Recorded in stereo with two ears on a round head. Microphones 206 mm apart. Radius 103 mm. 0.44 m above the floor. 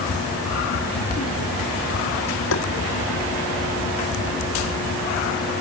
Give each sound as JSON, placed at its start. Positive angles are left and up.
{"t": 2.5, "sound": "tapping", "side_deg": 60}